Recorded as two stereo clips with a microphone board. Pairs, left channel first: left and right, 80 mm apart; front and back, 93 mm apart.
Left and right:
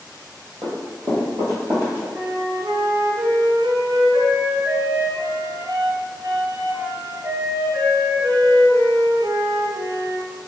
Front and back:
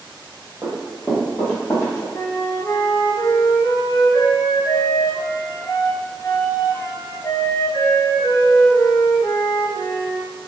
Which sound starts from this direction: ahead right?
A flute, at 2.1 s.